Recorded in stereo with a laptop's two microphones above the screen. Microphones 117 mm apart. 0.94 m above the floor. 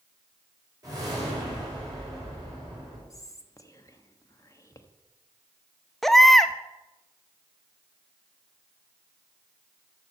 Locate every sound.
0.8 s a whoosh: 35° right (ahead or behind), 3.5 m
3.1 s whispering: 30° left (ahead or behind), 1.2 m
6.0 s a baby crying: 5° left (ahead or behind), 0.6 m